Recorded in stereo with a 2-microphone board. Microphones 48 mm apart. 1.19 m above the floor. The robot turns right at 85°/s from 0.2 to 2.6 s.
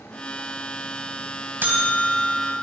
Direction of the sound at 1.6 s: 135° right.